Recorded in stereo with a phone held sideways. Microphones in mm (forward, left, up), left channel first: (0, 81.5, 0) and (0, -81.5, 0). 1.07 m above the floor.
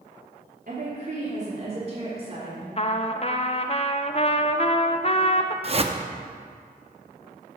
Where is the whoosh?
40° right (ahead or behind), 0.6 m.